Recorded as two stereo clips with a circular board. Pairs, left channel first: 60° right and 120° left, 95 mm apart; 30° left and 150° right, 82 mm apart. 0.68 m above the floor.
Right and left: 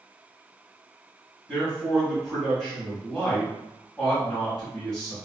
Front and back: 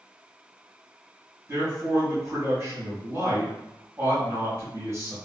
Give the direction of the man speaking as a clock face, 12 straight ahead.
5 o'clock.